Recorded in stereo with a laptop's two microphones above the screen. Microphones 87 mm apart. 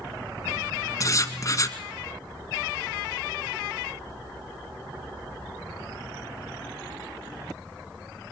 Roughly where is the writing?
Left.